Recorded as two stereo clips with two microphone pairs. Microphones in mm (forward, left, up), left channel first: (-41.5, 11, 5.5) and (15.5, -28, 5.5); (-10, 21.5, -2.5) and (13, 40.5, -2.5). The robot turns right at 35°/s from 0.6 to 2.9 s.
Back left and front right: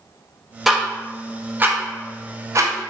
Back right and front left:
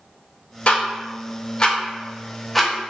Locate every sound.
0.7 s ticking: 120° right, 0.5 m; by 2.9 s 45° right, 0.5 m